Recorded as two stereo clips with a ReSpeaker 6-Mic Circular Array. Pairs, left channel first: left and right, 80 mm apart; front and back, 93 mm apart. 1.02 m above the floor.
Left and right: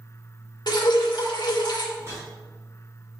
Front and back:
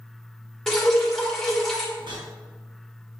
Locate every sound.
0.7 s dripping: 85° left, 1.6 m
2.0 s a whoosh: 145° right, 4 m